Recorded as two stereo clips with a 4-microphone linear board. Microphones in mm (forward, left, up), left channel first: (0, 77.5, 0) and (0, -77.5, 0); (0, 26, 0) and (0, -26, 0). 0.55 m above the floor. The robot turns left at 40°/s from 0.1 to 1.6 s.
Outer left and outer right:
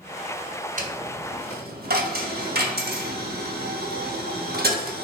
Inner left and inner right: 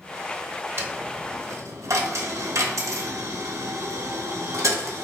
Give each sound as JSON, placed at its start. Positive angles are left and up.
{"t": 0.8, "sound": "a dropped coin", "side_deg": -60, "distance_m": 0.6}